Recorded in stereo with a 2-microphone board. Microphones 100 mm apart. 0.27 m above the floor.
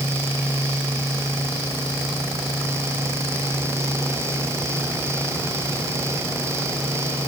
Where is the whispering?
I don't hear whispering.